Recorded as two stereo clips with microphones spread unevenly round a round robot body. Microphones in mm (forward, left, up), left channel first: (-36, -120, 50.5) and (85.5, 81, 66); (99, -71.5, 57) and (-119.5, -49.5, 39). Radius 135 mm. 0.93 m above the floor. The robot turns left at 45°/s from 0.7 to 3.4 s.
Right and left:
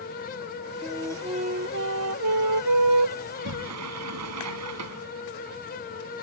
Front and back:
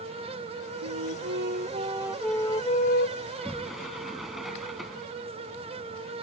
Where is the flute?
150° left; by 3.1 s 45° left.